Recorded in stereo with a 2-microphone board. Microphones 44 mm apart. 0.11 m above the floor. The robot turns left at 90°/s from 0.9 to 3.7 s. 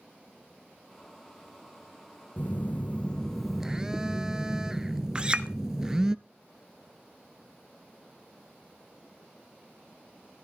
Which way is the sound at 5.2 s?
25° right (ahead or behind).